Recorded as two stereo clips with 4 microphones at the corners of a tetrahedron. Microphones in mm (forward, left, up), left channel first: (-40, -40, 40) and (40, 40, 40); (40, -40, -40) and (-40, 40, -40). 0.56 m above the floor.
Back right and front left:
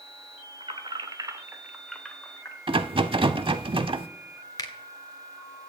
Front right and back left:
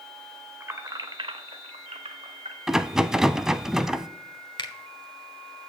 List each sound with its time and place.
0.6 s keys jangling: 65° left, 1.4 m; by 2.6 s 155° left, 1.8 m
2.7 s a rattle: 50° left, 0.6 m
4.6 s a finger snap: 85° right, 1.3 m